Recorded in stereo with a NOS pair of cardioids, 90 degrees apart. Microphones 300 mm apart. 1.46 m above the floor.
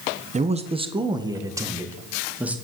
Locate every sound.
0.3 s a man speaking: 25° right, 1.3 m; by 2.5 s 5° right, 2.5 m